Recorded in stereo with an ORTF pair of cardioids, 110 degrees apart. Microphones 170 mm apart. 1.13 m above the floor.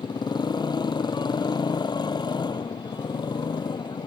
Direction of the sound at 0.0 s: 25° left.